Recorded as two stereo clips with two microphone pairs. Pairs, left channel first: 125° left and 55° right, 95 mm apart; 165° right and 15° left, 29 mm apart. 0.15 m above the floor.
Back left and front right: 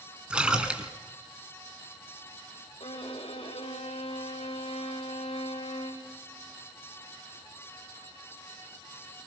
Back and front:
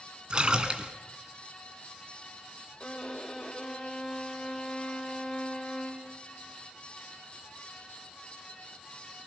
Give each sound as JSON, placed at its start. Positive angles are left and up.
{"t": 0.3, "sound": "a splash", "azimuth_deg": 15, "distance_m": 1.9}
{"t": 2.8, "sound": "a violin", "azimuth_deg": 130, "distance_m": 5.0}